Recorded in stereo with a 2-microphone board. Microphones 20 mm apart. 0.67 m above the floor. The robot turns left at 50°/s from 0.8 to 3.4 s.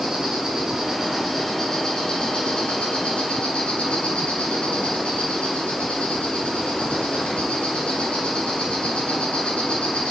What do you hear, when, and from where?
0.0 s an insect: 155° right, 3.5 m; by 10.1 s 75° left, 3.5 m